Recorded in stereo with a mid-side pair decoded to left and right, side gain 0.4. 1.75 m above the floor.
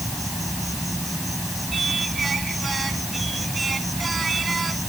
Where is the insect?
5° right.